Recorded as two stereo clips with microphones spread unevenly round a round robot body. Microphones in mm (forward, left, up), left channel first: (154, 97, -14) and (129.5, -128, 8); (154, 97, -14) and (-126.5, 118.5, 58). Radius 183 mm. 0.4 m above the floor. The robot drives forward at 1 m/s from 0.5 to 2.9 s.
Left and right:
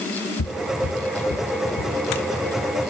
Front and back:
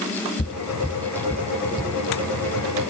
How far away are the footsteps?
About 0.9 m.